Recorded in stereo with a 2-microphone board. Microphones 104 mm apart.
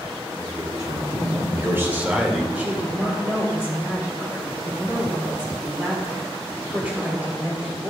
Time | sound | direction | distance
0.4 | a man speaking | 40° right (ahead or behind) | 3.5 m
2.5 | a woman speaking | 15° right (ahead or behind) | 2.5 m